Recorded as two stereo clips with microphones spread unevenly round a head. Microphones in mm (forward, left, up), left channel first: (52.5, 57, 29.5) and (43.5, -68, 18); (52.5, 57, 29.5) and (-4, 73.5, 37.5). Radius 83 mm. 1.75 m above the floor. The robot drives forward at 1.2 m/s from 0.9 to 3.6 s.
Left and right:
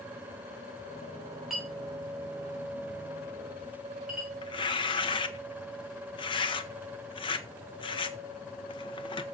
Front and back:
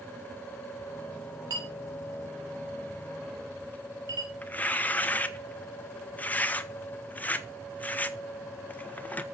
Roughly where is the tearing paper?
Ahead left.